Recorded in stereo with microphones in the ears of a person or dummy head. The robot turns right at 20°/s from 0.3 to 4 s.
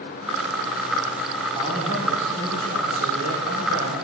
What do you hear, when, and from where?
1.6 s a man speaking: 155° right, 4.5 m; by 4.0 s 105° right, 4.5 m